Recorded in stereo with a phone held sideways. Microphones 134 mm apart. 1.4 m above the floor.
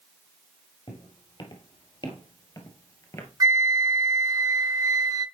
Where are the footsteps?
40° left (ahead or behind), 2 m; by 3.3 s 20° left (ahead or behind), 1.5 m.